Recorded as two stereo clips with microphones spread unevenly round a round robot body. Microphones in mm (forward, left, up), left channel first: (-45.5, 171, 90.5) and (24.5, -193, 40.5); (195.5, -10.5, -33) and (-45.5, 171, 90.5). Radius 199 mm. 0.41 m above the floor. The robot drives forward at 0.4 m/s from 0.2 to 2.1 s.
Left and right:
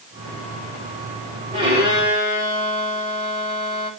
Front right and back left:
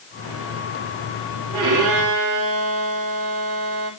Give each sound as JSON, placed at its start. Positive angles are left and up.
{"t": 1.5, "sound": "a violin", "azimuth_deg": -155, "distance_m": 10.0}